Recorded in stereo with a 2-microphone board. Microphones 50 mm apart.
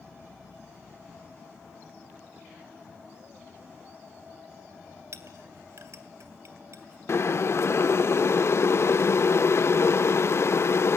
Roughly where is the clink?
Right.